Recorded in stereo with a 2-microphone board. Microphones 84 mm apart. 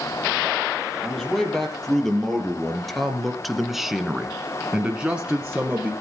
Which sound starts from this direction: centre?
A man speaking, at 1.0 s.